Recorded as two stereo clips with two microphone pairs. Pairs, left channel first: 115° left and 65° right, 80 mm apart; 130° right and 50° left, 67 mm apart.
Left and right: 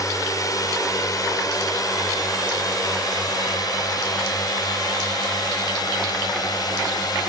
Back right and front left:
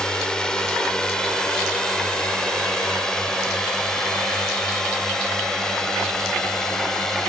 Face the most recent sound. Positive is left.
turn(degrees=145)